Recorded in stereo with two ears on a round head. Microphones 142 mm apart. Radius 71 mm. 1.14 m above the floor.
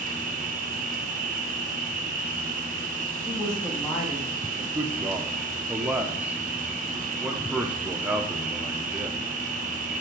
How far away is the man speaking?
About 0.7 m.